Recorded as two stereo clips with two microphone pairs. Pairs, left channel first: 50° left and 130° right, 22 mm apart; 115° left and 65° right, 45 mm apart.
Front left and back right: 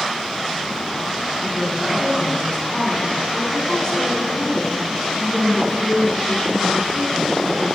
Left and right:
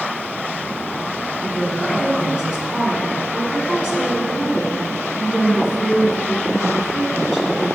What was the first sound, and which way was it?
A woman speaking, 10° left.